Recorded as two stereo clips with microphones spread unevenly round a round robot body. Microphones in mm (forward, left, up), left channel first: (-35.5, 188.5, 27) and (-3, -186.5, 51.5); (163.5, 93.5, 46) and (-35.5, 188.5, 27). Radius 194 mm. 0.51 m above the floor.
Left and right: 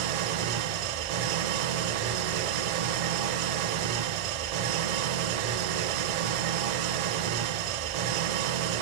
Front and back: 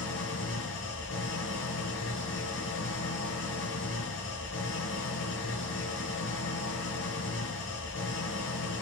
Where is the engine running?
80° right, 0.9 m.